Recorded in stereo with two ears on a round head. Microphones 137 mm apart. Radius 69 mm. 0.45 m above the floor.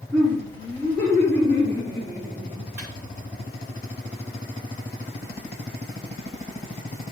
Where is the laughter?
25° left (ahead or behind), 4 m; by 2.6 s 50° left (ahead or behind), 6 m.